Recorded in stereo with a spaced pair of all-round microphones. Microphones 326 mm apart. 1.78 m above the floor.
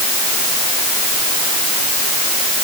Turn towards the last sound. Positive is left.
No sound to turn to.